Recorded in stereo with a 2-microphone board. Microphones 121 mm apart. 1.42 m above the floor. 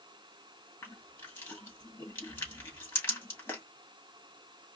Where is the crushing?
20° left (ahead or behind), 2 m.